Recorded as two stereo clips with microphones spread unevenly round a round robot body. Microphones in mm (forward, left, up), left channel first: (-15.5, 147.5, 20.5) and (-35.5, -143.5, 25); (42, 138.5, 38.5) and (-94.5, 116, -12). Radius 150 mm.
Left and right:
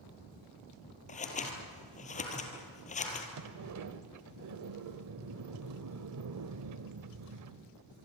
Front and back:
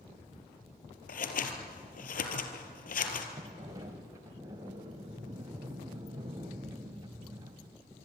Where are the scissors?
20° left, 3 m.